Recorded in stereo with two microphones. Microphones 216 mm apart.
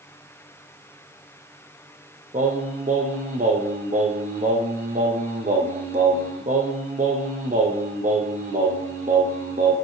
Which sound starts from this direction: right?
Singing, at 2.3 s.